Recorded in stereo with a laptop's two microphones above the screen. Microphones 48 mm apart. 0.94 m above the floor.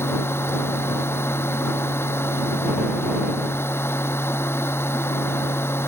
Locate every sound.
0.0 s a machine running: 55° left (ahead or behind)